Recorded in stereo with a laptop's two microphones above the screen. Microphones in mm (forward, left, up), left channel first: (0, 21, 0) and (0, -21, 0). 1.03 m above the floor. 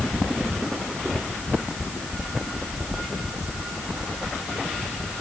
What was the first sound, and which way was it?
Only background noise.